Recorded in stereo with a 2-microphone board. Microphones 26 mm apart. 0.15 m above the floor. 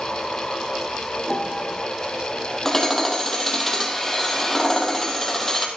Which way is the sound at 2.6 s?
15° left (ahead or behind).